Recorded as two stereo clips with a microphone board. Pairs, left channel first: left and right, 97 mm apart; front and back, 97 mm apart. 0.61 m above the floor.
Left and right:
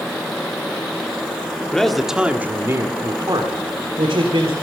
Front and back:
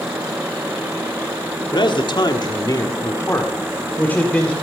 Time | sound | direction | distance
1.7 | a man speaking | 10° left | 1.4 m